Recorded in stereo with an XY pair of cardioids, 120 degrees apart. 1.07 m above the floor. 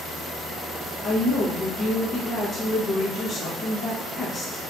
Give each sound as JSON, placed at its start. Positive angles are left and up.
{"t": 1.0, "sound": "a woman speaking", "azimuth_deg": 40, "distance_m": 0.8}